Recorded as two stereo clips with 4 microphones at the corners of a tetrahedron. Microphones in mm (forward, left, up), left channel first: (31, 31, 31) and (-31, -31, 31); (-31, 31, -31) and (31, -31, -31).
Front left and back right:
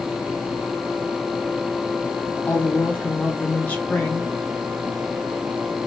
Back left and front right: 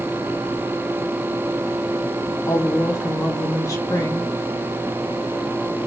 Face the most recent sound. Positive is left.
turn(degrees=110)